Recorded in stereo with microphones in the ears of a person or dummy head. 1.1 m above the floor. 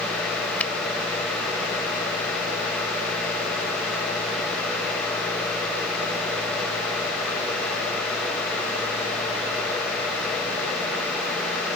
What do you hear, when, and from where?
0.6 s a finger snap: 5° left (ahead or behind)